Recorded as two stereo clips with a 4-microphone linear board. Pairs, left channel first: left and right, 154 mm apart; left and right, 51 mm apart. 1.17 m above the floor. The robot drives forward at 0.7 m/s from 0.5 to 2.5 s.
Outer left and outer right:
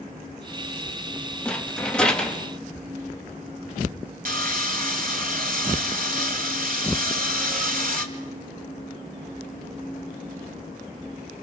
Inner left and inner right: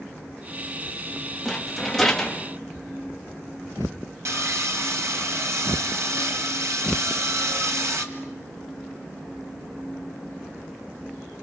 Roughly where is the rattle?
Centre.